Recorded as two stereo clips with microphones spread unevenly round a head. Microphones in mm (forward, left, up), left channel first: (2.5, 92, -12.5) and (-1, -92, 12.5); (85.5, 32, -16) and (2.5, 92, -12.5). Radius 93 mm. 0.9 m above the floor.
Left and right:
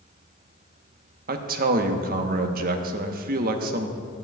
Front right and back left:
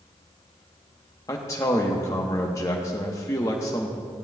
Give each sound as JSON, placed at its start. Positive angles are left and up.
{"t": 1.3, "sound": "a man speaking", "azimuth_deg": -80, "distance_m": 0.8}